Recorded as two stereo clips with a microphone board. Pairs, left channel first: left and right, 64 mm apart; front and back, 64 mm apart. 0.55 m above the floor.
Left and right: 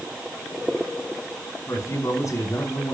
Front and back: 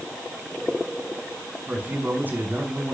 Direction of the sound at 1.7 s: 120° left.